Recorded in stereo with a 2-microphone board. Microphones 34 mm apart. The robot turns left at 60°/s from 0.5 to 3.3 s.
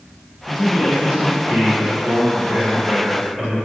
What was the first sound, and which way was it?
A man speaking, 5° left.